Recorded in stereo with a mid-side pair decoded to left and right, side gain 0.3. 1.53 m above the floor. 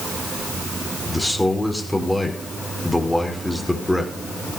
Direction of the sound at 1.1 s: 10° left.